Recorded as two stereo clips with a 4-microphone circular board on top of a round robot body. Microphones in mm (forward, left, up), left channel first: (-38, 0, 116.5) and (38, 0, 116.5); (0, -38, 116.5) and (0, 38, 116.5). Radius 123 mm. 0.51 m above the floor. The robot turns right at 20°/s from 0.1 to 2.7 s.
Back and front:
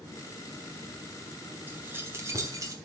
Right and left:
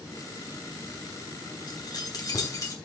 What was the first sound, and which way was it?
Keys jangling, 65° right.